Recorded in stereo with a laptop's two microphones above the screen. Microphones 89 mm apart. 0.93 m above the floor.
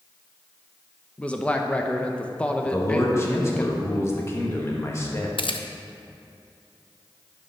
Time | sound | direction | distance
1.2 | a man speaking | 15° left (ahead or behind) | 0.8 m
2.6 | a man speaking | 30° left (ahead or behind) | 1.1 m
5.4 | a camera shutter | 70° left (ahead or behind) | 0.5 m